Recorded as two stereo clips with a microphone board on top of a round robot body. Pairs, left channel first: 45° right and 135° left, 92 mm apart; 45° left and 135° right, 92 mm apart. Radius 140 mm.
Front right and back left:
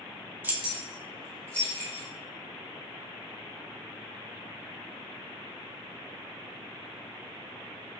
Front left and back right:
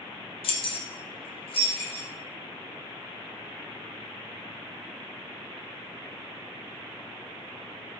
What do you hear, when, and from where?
0.4 s keys jangling: 65° left, 0.5 m; by 2.1 s 25° left, 1.3 m